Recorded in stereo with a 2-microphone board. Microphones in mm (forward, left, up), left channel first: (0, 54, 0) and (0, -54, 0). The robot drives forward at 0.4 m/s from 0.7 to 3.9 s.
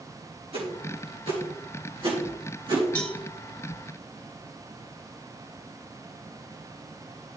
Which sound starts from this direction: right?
A whoosh, at 0.5 s.